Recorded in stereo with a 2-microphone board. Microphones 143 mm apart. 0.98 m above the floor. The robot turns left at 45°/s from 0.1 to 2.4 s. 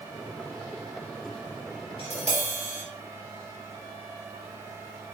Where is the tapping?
45° left (ahead or behind), 4 m; by 2.8 s 60° left (ahead or behind), 4 m.